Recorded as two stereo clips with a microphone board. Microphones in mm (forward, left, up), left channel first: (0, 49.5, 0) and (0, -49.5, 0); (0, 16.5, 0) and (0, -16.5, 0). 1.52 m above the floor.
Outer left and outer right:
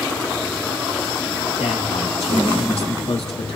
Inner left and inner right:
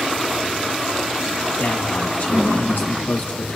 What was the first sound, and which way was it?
A man speaking, 85° left.